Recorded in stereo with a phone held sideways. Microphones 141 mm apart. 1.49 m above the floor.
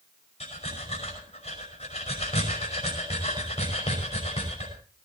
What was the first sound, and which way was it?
Breathing, 50° left (ahead or behind).